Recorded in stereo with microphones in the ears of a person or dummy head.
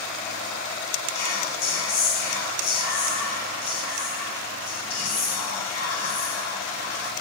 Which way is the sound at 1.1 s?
75° left (ahead or behind).